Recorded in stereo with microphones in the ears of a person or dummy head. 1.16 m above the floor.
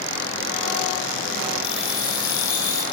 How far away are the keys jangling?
About 2.5 m.